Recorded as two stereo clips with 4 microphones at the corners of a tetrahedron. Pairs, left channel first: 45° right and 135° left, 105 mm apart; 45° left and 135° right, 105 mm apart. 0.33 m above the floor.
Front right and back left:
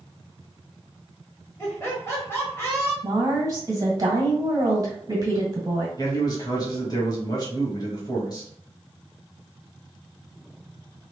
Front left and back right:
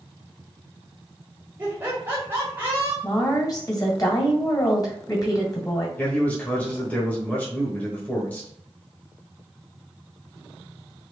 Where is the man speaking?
25° right, 1.1 m.